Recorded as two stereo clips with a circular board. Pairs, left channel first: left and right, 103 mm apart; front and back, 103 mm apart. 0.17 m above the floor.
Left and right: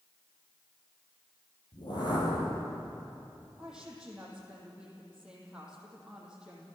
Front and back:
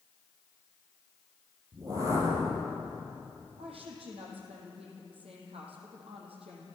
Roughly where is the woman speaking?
Behind.